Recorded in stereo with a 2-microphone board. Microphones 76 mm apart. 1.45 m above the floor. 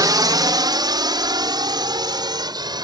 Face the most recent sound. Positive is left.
turn(degrees=-70)  # may be behind; listen again after turning